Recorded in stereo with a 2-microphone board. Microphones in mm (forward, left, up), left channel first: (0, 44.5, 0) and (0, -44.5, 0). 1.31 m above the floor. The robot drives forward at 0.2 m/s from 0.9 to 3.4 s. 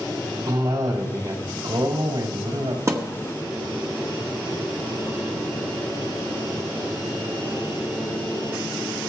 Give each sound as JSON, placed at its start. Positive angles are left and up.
{"t": 0.5, "sound": "a cough", "side_deg": -65, "distance_m": 3.0}
{"t": 2.9, "sound": "a thud", "side_deg": -35, "distance_m": 1.1}